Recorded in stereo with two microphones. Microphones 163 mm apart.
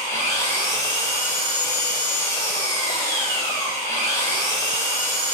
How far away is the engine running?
About 3 m.